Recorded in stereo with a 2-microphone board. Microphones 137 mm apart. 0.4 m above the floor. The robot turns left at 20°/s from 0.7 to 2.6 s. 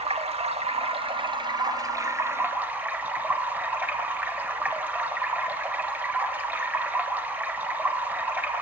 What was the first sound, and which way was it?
Running water, 130° right.